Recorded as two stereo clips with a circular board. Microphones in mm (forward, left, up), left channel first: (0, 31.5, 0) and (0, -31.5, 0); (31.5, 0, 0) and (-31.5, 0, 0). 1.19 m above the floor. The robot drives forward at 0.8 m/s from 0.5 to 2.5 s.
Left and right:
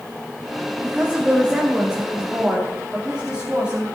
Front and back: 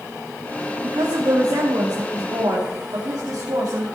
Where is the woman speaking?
160° right, 1.3 m; by 3.8 s 170° right, 2.5 m.